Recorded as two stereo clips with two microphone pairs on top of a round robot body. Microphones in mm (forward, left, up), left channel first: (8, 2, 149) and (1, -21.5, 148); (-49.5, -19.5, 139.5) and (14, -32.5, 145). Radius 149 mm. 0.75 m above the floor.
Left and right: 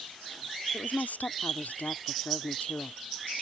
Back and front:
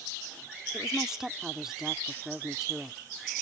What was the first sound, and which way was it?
A woman speaking, 75° left.